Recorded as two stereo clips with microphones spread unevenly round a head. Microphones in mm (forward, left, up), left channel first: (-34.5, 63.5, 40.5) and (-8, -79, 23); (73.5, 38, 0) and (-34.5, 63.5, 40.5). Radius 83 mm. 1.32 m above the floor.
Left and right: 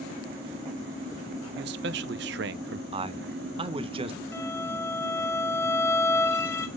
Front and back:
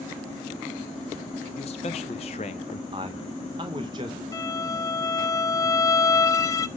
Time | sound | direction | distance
1.6 | a man speaking | 65° right | 0.6 m
2.9 | a man speaking | 135° right | 0.8 m
4.3 | a violin | 55° left | 0.6 m